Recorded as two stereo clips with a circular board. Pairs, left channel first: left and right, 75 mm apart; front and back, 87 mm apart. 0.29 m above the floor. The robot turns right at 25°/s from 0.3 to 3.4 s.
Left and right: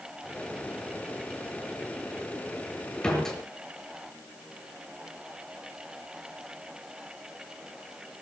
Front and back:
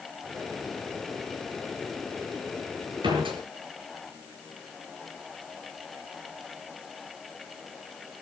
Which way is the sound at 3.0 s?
165° left.